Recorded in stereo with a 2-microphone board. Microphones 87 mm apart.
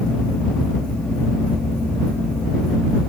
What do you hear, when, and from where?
Only background noise.